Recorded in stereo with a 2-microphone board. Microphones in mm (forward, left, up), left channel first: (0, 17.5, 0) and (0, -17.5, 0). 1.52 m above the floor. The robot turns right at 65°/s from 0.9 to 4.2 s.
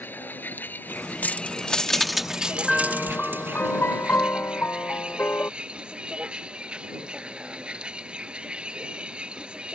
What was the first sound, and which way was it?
A vehicle, 120° left.